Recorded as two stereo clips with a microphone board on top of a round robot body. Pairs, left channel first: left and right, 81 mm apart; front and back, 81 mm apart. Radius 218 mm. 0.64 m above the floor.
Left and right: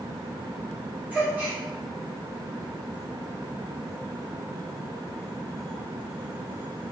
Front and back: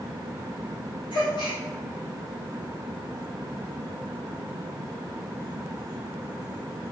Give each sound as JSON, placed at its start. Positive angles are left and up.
{"t": 1.1, "sound": "a gasp", "azimuth_deg": -20, "distance_m": 3.0}